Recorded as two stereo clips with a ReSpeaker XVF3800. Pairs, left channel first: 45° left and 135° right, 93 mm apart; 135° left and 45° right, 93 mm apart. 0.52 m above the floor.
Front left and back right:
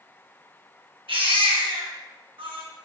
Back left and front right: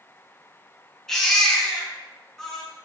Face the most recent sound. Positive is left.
turn(degrees=-140)